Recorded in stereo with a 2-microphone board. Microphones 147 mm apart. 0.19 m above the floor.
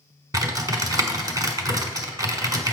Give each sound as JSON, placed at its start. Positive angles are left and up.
{"t": 0.3, "sound": "typing on a keyboard", "side_deg": -25, "distance_m": 1.2}